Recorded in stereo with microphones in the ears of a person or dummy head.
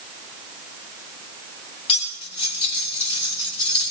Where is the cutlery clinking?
30° left (ahead or behind), 4 m.